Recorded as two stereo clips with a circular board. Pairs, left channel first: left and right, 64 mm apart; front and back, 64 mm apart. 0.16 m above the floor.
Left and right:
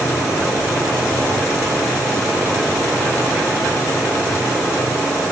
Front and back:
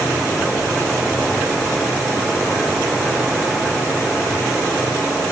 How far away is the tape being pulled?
No tape being pulled in this recording.